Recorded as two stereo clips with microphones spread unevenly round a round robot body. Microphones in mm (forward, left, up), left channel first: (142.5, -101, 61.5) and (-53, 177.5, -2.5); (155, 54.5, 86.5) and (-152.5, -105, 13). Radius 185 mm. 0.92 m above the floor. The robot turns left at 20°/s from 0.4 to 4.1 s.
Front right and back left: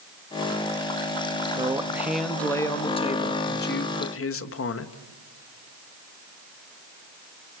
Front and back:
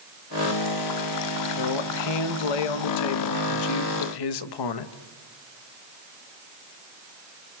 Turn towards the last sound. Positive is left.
turn(degrees=0)